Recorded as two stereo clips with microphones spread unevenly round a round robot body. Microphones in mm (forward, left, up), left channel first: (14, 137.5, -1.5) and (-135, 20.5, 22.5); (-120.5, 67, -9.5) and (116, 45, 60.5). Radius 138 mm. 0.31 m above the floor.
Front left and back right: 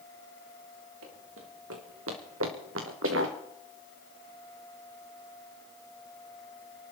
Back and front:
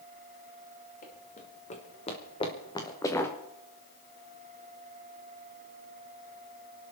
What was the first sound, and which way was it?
Running footsteps, 120° right.